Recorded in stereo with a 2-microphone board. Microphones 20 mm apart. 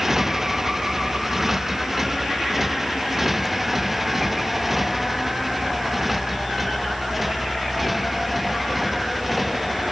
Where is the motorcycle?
20° right (ahead or behind); by 9.9 s 10° right (ahead or behind).